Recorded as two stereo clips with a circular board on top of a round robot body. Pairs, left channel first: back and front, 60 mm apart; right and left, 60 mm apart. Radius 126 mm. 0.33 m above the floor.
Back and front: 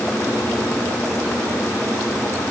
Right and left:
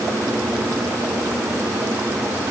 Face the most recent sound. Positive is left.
No sound to turn to.